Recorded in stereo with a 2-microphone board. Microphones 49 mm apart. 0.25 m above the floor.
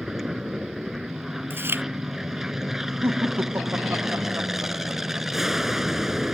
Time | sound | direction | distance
0.0 | an aircraft | 10° right (ahead or behind) | ?
1.5 | chewing | 50° right (ahead or behind) | ?
3.0 | laughter | 55° right (ahead or behind) | ?